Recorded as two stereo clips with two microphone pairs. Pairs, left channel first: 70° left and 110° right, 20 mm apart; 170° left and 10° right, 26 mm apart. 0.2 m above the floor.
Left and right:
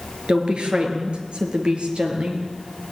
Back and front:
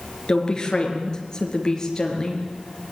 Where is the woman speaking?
135° right, 4 m; by 2.9 s 125° right, 5 m.